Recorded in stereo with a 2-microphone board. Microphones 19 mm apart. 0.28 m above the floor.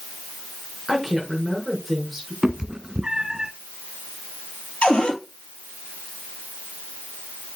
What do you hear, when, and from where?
0.9 s a woman speaking: 5° right (ahead or behind), 4.5 m
2.4 s a cat meowing: 45° right (ahead or behind), 0.6 m
4.8 s a cupboard door: 70° left (ahead or behind), 2.5 m